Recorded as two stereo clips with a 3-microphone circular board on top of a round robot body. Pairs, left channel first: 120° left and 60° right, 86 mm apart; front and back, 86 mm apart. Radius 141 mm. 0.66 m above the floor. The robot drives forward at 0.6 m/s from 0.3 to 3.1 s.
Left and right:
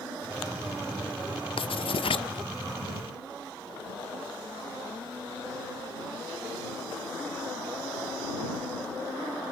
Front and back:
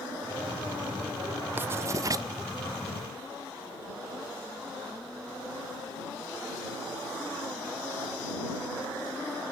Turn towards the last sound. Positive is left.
turn(degrees=150)